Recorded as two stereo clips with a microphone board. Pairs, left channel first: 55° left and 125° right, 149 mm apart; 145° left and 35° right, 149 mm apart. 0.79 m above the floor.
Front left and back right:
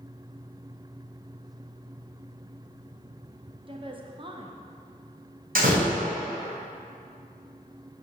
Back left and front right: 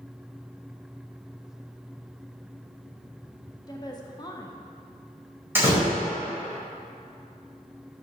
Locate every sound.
3.7 s a woman speaking: 165° right, 0.8 m
5.5 s a door slam: 110° right, 2.5 m